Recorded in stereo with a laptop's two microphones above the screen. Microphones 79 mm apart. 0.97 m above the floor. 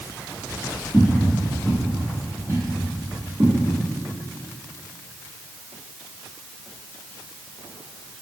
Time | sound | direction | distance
0.9 | footsteps | 15° left (ahead or behind) | 1.7 m